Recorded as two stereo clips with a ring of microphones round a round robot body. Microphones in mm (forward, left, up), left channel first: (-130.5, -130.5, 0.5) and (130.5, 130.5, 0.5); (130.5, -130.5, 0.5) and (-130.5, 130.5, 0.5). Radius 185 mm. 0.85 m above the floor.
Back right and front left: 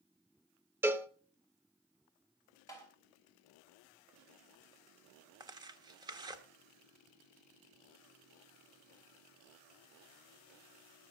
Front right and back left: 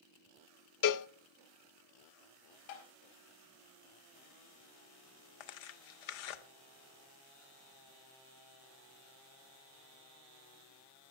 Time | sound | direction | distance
0.8 | a cowbell | 35° right | 0.6 m
2.7 | tapping | 55° right | 4.5 m
5.4 | tearing paper | 35° right | 1.1 m